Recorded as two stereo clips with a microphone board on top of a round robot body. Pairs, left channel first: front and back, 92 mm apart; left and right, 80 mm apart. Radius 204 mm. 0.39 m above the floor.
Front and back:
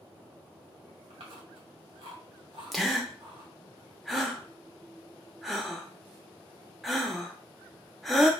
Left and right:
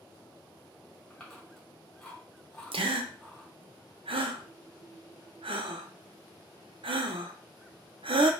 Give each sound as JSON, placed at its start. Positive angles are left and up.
{"t": 1.1, "sound": "chewing", "azimuth_deg": 175, "distance_m": 1.8}
{"t": 2.7, "sound": "a gasp", "azimuth_deg": -90, "distance_m": 0.5}